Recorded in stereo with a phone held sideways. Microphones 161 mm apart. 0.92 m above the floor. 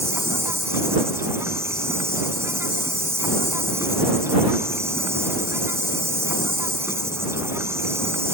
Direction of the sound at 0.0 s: 15° right (ahead or behind).